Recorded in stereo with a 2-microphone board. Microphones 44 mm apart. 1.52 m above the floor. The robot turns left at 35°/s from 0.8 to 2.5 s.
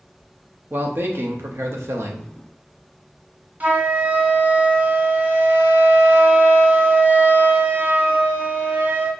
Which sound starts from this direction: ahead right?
A man speaking, at 0.7 s.